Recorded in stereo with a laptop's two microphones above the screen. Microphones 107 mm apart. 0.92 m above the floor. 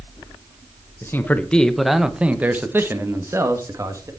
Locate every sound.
1.0 s a man speaking: 25° left (ahead or behind), 0.9 m; by 4.1 s 30° right (ahead or behind), 2.0 m